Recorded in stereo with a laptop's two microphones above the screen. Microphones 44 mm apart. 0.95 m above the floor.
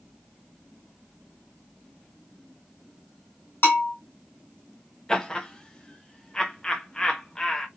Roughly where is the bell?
Left.